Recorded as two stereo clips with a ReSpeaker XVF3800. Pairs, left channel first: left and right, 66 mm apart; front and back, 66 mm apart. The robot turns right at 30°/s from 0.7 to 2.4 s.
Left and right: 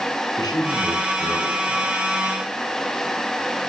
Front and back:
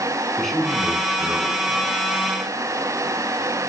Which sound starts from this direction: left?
A man speaking, at 0.4 s.